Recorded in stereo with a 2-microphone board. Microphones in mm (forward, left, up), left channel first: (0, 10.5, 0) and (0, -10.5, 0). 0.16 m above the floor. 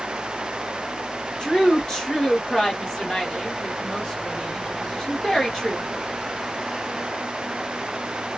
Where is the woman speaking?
25° left (ahead or behind), 2 m.